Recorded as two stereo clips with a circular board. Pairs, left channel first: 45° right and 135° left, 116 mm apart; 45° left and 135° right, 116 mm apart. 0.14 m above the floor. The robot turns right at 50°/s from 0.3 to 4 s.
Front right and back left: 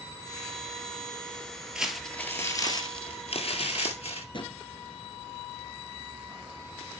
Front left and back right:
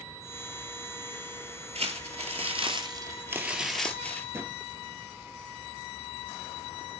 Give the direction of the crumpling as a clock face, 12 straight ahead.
5 o'clock.